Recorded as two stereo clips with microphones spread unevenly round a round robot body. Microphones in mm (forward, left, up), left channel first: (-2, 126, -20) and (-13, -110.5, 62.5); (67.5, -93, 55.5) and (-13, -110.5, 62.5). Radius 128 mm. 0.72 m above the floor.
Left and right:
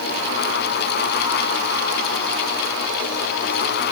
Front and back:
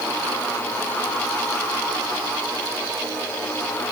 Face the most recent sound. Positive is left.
No sound to turn to.